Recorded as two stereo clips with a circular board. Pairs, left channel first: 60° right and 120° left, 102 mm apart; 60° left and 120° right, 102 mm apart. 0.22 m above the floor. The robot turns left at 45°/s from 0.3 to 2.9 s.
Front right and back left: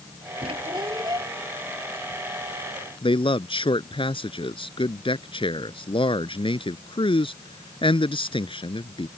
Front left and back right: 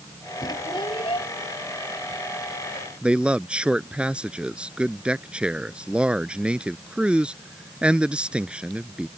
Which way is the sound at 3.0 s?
45° right.